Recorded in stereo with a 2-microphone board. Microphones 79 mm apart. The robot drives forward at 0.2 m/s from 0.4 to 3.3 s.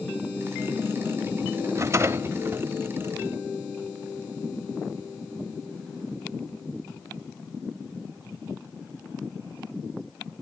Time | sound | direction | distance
1.8 | a rattle | 35° right (ahead or behind) | 0.5 m